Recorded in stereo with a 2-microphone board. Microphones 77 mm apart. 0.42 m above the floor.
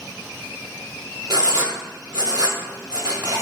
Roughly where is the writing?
Right.